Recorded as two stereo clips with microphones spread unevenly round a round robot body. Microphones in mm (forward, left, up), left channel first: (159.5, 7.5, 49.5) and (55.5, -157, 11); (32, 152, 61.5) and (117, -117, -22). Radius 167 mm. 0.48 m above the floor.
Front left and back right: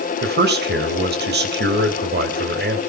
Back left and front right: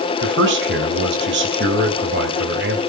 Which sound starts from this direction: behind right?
A man speaking, at 0.2 s.